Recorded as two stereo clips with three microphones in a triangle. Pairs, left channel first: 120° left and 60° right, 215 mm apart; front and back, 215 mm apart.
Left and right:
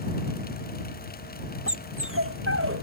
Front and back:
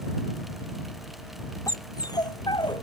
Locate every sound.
1.7 s a dog barking: 75° right; by 2.8 s 70° right